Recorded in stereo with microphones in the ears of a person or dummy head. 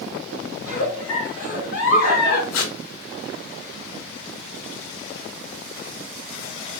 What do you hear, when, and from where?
0.6 s a giggle: 55° left (ahead or behind), 1.9 m
2.5 s tape being pulled: 65° left (ahead or behind), 0.7 m